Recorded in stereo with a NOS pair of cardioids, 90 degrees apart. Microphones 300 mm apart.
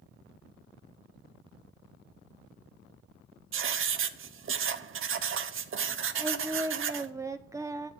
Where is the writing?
45° right, 0.8 m.